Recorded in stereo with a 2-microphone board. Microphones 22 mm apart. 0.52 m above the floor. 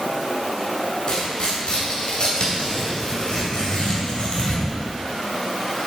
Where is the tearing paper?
50° left (ahead or behind), 2.5 m.